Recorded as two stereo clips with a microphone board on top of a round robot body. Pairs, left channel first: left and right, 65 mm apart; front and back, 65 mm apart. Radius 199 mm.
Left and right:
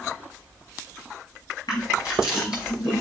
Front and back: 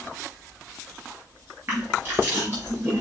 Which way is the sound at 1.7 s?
120° left.